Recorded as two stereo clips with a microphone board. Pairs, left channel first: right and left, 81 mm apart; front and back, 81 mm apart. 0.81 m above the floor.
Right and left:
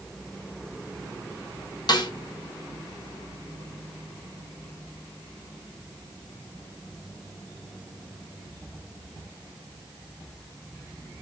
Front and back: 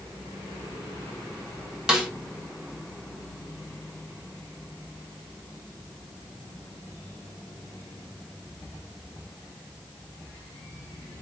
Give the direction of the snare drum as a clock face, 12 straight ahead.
3 o'clock.